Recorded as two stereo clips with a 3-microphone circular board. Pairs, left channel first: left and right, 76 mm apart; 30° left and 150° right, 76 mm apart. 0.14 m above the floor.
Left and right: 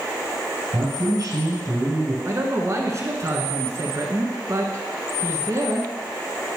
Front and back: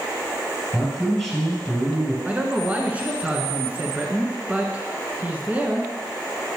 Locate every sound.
0.7 s a man speaking: 70° right, 2.5 m
2.2 s a man speaking: 90° right, 1.3 m